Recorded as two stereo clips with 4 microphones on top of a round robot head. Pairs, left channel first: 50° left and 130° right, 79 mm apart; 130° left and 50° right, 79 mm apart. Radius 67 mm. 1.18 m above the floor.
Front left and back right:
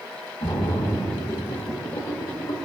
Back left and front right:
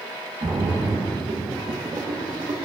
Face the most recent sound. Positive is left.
turn(degrees=5)